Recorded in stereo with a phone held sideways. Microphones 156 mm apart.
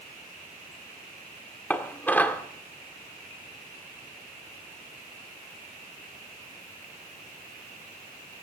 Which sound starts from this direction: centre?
Dishes clattering, at 1.7 s.